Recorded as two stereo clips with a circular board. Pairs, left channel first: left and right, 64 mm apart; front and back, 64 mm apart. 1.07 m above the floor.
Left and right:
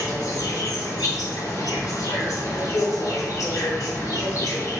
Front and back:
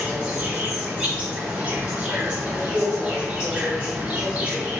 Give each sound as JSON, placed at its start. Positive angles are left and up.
{"t": 0.0, "sound": "an insect", "azimuth_deg": 105, "distance_m": 1.1}